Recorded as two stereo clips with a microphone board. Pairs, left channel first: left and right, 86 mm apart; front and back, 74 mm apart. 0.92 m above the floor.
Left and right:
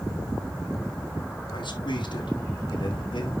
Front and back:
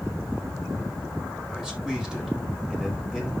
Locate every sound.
1.5 s a man speaking: 95° left, 5 m